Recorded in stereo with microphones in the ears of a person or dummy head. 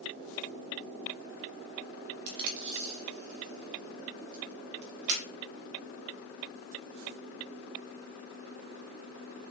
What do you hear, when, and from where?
2.3 s tape being pulled: 60° right (ahead or behind), 1.0 m